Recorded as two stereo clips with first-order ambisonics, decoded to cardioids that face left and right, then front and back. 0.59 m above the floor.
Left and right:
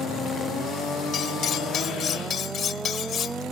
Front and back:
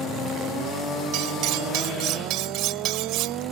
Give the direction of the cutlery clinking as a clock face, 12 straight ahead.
7 o'clock.